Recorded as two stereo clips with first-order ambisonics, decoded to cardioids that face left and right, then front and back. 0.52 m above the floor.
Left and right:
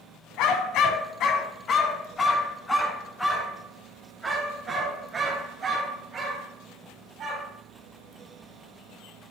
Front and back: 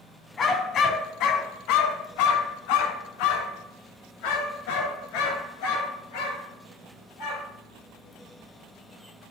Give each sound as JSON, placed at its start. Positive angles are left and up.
{"t": 0.4, "sound": "a dog barking", "azimuth_deg": 65, "distance_m": 1.2}